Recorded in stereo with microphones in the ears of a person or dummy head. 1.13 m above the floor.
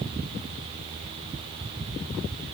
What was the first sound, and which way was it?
Only background noise.